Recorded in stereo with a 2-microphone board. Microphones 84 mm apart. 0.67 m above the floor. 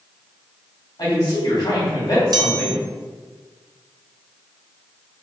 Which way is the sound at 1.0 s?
55° left (ahead or behind).